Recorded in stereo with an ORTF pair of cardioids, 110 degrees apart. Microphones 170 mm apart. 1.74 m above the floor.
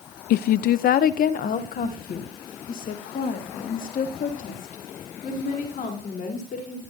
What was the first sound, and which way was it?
A woman speaking, 65° left.